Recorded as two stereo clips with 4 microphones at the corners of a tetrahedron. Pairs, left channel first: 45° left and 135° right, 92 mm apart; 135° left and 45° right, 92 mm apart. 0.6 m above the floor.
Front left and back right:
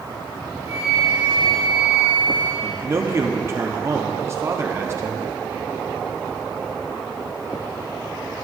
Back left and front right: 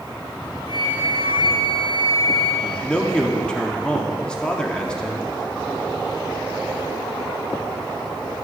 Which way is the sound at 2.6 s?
155° right.